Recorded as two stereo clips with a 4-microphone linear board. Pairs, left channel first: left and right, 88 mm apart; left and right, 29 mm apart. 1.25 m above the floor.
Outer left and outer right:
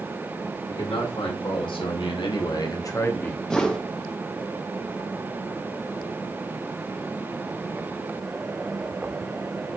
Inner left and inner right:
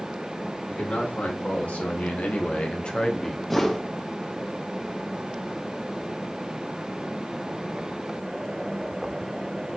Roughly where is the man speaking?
Left.